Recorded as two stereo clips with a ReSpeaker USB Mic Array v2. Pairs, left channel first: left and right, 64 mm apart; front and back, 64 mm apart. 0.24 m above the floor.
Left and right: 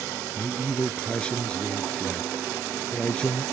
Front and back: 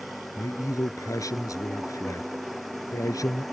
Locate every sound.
0.3 s a man speaking: 20° left